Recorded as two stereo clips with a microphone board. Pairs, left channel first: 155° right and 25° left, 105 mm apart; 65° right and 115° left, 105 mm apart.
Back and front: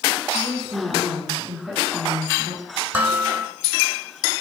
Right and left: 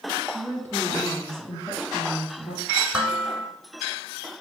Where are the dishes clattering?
55° left, 0.8 m.